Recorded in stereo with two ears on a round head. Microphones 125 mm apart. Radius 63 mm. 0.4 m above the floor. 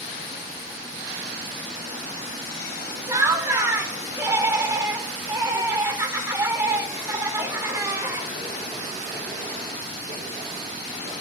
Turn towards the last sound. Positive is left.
turn(degrees=-20)  # may be behind; listen again after turning